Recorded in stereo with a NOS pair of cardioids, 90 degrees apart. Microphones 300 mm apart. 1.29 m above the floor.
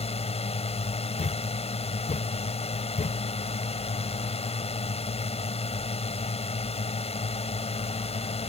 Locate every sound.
0.0 s a drone: 20° left
1.2 s a thud: 25° left